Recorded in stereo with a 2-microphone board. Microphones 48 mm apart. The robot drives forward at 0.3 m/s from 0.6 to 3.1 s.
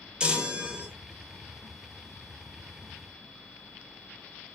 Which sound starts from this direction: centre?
A chime, at 0.2 s.